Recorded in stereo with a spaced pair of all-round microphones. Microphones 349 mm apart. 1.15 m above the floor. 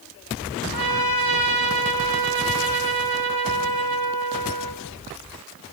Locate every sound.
0.7 s a trumpet: 80° left, 5 m